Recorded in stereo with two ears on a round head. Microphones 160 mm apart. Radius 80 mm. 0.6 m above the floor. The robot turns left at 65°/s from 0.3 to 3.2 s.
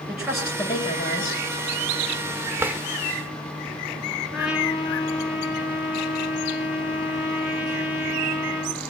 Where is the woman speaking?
175° right, 9.5 m; by 1.4 s 115° left, 9.5 m.